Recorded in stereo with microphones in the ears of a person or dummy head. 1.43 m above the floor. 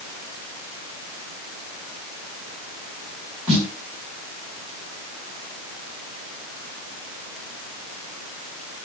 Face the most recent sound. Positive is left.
turn(degrees=-5)  # may be behind; listen again after turning